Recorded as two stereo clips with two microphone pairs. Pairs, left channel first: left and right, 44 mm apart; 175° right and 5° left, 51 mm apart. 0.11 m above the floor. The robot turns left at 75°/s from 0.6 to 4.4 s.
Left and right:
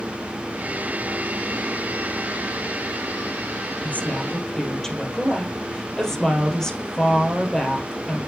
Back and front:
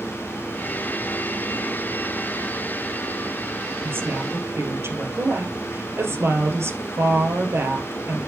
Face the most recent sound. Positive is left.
turn(degrees=10)